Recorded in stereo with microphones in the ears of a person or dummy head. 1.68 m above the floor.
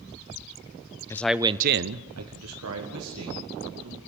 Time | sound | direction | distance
1.1 | a man speaking | 15° left (ahead or behind) | 0.8 m